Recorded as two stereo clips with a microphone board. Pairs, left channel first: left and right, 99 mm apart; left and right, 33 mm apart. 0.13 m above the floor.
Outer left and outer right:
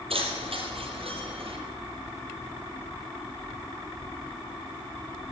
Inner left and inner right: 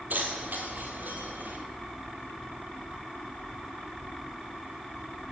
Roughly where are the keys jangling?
Right.